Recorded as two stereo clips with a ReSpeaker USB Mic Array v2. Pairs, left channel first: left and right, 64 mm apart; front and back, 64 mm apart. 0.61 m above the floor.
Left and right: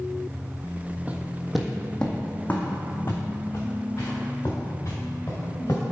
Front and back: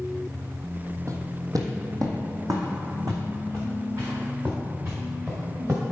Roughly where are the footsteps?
Behind right.